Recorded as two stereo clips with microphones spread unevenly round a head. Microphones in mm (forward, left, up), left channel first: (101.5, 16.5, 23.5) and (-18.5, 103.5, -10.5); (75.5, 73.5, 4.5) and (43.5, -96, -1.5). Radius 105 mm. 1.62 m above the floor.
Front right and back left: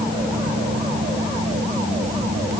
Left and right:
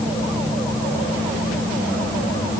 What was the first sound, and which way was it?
Only background noise.